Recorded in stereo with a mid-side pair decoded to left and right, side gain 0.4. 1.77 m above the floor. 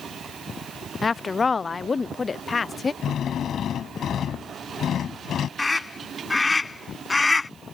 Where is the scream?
25° left.